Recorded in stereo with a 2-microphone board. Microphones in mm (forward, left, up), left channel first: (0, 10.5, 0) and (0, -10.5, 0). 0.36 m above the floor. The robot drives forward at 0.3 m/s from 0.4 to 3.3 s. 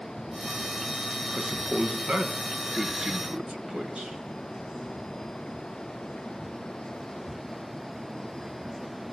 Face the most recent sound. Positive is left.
turn(degrees=-65)  # may be behind; listen again after turning